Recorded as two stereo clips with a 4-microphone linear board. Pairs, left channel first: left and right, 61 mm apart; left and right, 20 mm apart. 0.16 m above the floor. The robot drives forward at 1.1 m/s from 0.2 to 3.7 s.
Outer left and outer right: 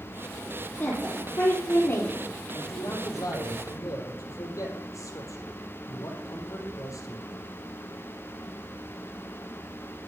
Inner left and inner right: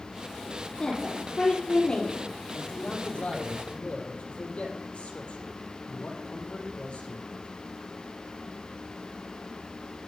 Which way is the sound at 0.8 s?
35° left (ahead or behind).